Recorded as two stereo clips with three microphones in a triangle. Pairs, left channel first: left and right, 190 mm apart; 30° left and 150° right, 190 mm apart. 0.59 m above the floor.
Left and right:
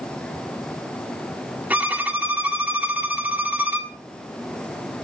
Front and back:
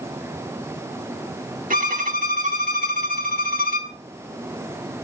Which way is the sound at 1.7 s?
170° right.